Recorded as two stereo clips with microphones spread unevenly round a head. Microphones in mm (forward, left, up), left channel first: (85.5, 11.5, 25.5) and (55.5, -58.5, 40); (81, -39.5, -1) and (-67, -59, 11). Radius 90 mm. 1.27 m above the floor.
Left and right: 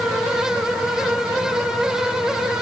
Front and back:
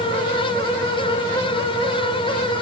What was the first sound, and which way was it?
Only background noise.